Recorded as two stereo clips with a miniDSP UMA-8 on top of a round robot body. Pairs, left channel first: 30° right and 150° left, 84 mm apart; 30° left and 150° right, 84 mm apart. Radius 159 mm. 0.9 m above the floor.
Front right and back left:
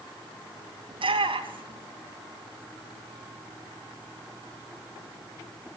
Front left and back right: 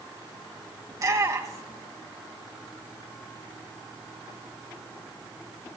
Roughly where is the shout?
Behind.